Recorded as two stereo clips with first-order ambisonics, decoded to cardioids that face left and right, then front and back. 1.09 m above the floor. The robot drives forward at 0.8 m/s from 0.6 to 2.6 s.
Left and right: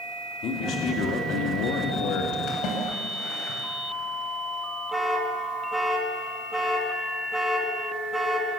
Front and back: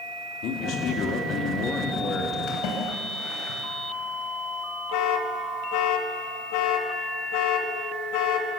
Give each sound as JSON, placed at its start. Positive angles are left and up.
{"t": 0.4, "sound": "a man speaking", "azimuth_deg": 40, "distance_m": 3.0}
{"t": 2.5, "sound": "a splash", "azimuth_deg": 40, "distance_m": 5.5}
{"t": 4.9, "sound": "an alarm", "azimuth_deg": -5, "distance_m": 2.5}